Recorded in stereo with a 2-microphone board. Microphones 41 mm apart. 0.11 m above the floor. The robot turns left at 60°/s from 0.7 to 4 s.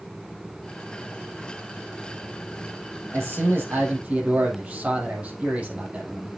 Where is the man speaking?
90° right, 4.5 m; by 6.3 s 145° right, 4.5 m.